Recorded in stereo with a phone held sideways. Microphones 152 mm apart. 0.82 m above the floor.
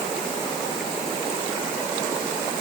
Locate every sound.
Only background noise.